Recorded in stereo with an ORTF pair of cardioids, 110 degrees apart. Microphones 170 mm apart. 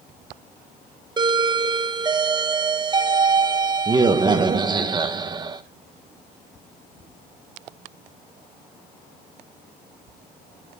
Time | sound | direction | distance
1.2 | a doorbell | 25° right | 1.3 m